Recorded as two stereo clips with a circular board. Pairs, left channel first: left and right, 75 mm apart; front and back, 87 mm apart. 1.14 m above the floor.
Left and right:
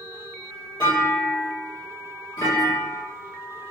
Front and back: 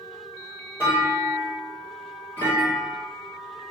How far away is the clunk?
About 1.6 m.